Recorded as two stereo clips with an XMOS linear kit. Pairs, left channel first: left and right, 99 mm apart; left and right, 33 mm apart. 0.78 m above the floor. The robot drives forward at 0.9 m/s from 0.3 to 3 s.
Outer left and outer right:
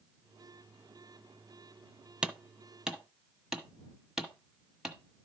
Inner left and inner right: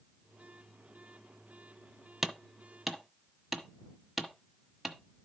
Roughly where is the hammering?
Centre.